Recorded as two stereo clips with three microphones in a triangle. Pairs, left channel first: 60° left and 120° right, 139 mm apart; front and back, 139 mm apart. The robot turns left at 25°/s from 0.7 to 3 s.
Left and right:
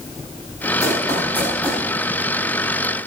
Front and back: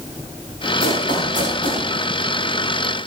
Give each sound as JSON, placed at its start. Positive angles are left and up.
{"t": 0.8, "sound": "running footsteps", "azimuth_deg": -5, "distance_m": 9.0}